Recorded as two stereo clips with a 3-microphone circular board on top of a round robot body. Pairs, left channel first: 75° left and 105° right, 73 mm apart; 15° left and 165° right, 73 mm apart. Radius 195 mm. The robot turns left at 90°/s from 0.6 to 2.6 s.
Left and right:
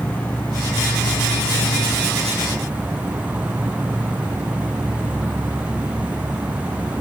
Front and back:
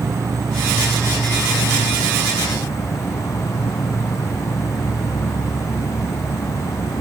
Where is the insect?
145° left; by 7.0 s 35° right.